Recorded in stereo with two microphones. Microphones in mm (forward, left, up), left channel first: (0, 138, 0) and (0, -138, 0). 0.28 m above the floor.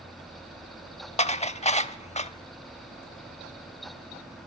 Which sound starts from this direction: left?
Dishes clattering, at 1.2 s.